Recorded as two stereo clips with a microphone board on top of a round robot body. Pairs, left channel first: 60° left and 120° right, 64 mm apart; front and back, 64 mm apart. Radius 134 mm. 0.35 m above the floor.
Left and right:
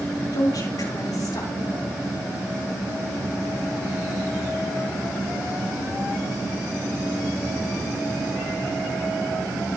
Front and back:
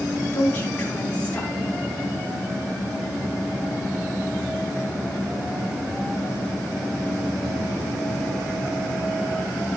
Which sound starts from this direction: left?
A woman speaking, at 0.3 s.